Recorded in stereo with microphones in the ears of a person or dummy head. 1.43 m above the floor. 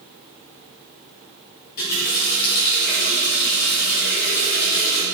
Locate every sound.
1.8 s a running tap: 55° left (ahead or behind), 2 m